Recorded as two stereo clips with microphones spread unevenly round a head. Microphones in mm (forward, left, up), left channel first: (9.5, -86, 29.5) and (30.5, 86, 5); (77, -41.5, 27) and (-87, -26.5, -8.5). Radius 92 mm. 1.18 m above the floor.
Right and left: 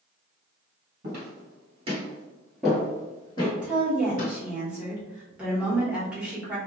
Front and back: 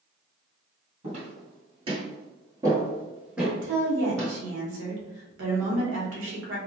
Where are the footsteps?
115° left, 1.6 m; by 4.3 s 80° right, 1.8 m.